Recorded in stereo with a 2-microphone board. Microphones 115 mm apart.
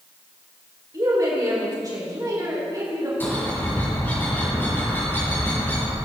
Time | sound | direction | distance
0.9 | a woman speaking | 35° right (ahead or behind) | 3.5 m
3.2 | a bird | 15° left (ahead or behind) | 5 m